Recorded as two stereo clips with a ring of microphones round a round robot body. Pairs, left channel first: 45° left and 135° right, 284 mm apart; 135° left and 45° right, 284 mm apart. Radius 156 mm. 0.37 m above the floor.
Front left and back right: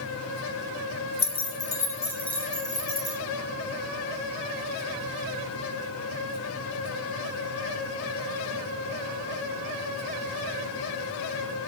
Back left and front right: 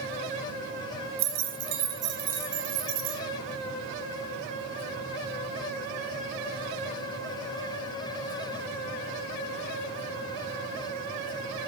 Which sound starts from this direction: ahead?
Keys jangling, at 1.2 s.